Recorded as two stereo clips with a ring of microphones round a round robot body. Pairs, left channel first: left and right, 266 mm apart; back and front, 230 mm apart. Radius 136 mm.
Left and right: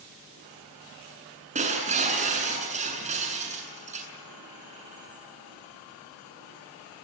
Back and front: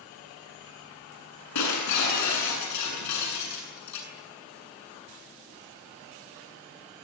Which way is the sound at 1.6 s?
155° right.